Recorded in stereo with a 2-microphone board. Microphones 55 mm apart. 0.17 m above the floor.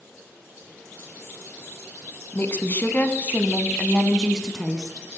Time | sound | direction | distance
2.3 | a woman speaking | 40° left (ahead or behind) | 1.5 m